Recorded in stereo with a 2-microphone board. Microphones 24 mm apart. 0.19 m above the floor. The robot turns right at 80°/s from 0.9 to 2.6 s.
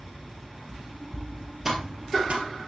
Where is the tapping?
15° right (ahead or behind), 2.5 m; by 2.5 s 70° right (ahead or behind), 2.5 m.